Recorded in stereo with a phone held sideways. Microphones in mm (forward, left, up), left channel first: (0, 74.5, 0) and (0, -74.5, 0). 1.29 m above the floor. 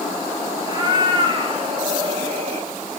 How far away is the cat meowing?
About 4 m.